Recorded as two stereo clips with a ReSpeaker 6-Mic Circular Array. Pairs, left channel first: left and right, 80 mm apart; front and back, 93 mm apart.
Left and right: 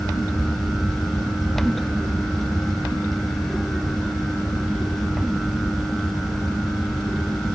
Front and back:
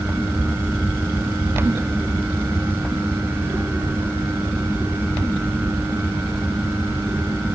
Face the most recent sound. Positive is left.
No sound to turn to.